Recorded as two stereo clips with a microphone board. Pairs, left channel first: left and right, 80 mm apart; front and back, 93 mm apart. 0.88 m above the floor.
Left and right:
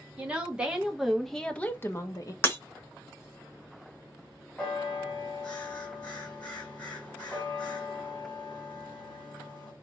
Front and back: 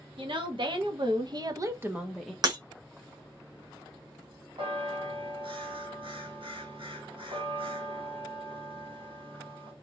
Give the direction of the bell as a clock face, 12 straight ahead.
6 o'clock.